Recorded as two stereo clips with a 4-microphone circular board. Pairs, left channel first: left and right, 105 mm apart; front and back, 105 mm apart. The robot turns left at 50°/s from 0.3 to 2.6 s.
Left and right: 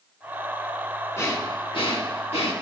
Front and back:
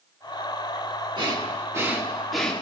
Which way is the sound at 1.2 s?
150° left.